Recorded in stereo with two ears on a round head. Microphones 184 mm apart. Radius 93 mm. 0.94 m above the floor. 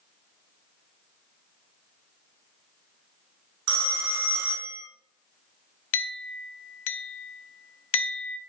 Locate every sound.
3.7 s a phone ringing: 85° right, 1.0 m
5.9 s a clink: 65° left (ahead or behind), 0.5 m